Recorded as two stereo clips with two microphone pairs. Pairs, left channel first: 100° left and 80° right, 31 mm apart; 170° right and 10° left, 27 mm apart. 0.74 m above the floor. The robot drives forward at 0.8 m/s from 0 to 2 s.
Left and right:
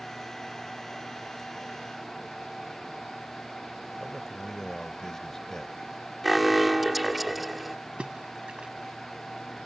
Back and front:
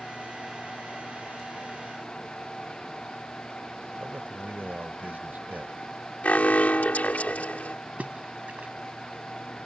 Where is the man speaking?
30° left.